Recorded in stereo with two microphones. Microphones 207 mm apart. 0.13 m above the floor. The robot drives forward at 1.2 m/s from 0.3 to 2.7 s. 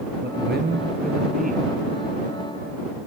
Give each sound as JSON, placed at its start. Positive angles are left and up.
{"t": 0.2, "sound": "a man speaking", "side_deg": -55, "distance_m": 2.0}